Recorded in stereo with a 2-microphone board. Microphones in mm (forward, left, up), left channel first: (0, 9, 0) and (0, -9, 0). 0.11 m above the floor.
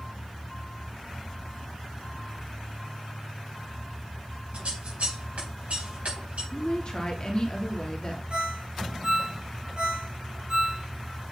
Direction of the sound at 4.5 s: 80° right.